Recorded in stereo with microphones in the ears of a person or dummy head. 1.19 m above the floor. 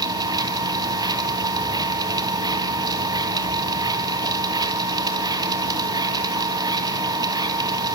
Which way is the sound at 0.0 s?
20° right (ahead or behind).